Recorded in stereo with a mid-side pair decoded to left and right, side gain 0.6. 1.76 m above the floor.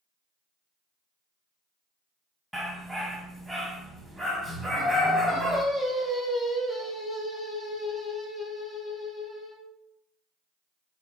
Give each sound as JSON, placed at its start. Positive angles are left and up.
{"t": 2.5, "sound": "a dog barking", "azimuth_deg": -5, "distance_m": 4.5}
{"t": 4.7, "sound": "singing", "azimuth_deg": 10, "distance_m": 7.0}